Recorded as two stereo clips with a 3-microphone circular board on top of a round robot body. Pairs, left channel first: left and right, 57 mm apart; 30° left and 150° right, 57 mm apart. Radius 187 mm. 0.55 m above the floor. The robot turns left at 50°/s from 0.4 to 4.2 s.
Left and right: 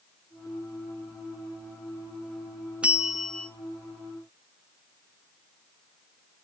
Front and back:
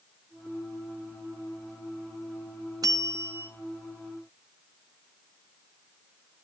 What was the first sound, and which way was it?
A bell, 160° right.